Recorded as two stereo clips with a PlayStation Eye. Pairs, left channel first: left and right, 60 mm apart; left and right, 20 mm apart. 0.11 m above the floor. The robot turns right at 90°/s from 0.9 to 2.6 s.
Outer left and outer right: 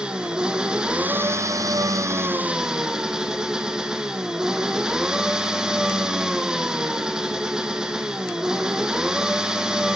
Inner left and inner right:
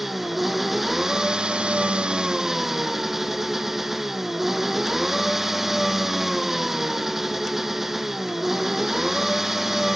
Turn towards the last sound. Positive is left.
turn(degrees=-15)